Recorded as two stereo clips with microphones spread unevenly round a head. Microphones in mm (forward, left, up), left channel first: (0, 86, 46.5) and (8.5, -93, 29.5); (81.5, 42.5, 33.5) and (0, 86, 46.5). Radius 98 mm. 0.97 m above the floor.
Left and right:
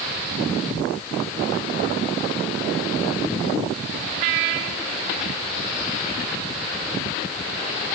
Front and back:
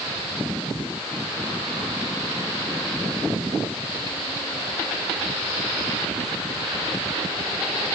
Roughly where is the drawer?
I don't hear a drawer.